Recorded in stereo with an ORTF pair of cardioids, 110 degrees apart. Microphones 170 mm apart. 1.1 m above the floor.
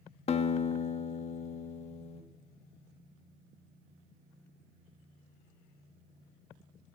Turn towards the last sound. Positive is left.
turn(degrees=40)